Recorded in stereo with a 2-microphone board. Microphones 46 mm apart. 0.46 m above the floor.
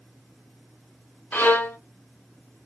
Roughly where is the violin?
Left.